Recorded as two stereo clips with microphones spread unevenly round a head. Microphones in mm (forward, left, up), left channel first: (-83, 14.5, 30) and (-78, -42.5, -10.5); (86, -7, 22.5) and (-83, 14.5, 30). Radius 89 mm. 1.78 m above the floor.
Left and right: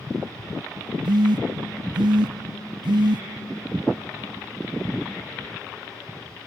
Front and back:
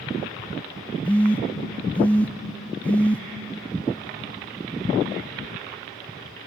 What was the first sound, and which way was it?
A phone buzzing, 90° right.